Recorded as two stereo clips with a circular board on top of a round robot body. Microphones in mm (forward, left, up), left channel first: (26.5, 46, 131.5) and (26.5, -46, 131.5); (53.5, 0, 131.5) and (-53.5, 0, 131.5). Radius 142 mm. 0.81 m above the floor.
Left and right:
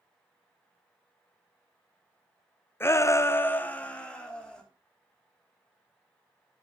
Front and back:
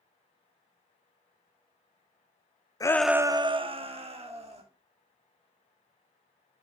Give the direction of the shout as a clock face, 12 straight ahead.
11 o'clock.